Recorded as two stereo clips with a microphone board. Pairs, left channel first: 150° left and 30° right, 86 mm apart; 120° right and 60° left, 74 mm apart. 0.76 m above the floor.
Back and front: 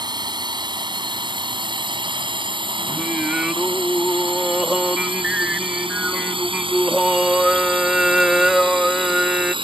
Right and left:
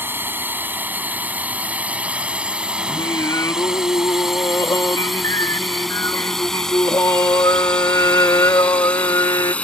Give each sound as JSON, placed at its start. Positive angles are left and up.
{"t": 0.0, "sound": "a drone", "azimuth_deg": 0}
{"t": 2.9, "sound": "singing", "azimuth_deg": -110}